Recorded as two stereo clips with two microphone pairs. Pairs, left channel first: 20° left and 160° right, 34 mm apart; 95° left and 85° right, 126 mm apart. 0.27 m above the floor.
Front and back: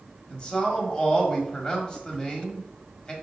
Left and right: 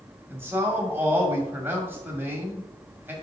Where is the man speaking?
25° right, 1.5 m.